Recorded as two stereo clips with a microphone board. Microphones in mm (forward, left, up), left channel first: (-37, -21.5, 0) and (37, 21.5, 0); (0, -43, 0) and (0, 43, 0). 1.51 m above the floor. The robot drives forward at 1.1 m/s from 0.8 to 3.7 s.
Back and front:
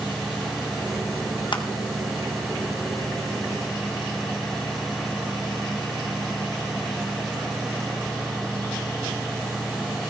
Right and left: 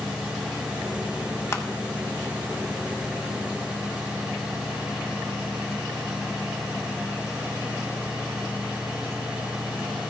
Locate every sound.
1.5 s crushing: 145° right, 1.1 m; by 1.6 s 150° right, 1.2 m